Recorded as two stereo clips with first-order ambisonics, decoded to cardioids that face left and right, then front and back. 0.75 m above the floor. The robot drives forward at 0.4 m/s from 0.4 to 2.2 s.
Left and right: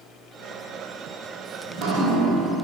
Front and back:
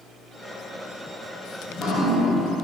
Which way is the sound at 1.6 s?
70° right.